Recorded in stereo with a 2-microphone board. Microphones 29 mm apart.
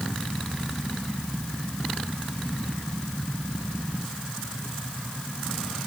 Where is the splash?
No splash in this recording.